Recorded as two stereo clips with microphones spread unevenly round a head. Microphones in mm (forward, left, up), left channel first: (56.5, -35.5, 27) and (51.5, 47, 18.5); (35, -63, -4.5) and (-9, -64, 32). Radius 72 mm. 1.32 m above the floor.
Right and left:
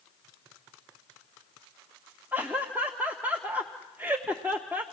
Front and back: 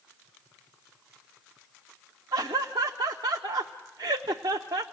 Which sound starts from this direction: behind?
Laughter, at 2.3 s.